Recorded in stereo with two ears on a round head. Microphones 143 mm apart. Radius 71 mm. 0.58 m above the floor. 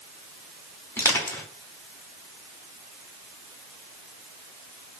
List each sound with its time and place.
1.0 s crushing: 15° left (ahead or behind), 1.2 m